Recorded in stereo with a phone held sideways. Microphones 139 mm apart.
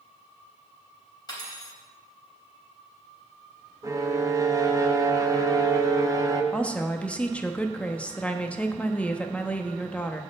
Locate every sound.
1.3 s cutlery clinking: 30° left (ahead or behind), 3.5 m
3.8 s a violin: 25° right (ahead or behind), 0.8 m
6.5 s a woman speaking: 10° left (ahead or behind), 1.0 m